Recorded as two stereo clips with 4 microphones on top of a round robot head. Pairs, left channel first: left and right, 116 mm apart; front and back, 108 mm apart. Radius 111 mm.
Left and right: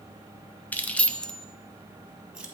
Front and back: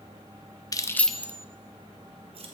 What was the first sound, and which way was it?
Keys jangling, 20° left.